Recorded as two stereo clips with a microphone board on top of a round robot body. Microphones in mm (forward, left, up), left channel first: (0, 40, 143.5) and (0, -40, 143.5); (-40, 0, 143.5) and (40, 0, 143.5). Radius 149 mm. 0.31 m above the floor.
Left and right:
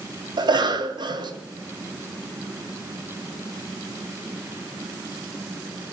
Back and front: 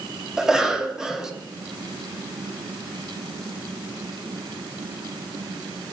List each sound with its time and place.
0.4 s a cough: 85° right, 2.5 m